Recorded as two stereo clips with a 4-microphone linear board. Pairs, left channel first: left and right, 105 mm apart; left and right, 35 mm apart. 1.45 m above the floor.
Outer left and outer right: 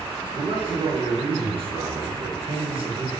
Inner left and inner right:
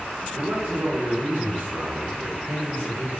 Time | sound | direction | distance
0.3 | a man speaking | 55° right (ahead or behind) | 1.1 m